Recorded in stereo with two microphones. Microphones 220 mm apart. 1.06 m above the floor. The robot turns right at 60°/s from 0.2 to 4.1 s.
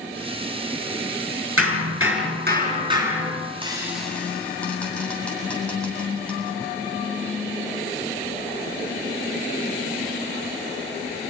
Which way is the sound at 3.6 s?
25° right (ahead or behind).